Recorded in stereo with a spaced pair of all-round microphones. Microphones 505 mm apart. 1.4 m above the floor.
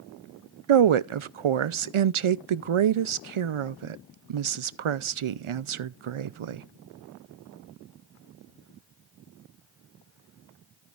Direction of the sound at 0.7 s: 75° right (ahead or behind).